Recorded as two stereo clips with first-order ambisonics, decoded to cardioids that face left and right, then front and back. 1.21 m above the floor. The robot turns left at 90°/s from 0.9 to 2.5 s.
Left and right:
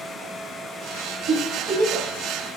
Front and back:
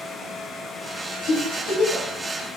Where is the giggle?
35° right, 1.1 m; by 2.1 s 105° right, 1.1 m.